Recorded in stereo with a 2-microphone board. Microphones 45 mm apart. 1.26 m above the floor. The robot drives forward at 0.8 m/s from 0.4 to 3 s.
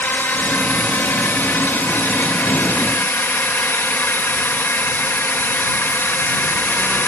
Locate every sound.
0.0 s a drone: 50° left (ahead or behind); by 7.1 s 55° left (ahead or behind)